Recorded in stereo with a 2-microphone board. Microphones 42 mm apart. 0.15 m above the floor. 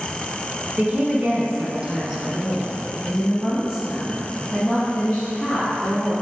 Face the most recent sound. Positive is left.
turn(degrees=10)  # may be behind; listen again after turning